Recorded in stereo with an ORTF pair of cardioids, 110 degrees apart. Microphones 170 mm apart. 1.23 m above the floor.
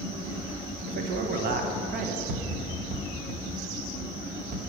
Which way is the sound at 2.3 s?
60° right.